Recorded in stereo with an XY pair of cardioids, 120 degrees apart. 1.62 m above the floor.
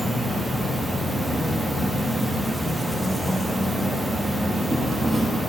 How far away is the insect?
About 0.8 m.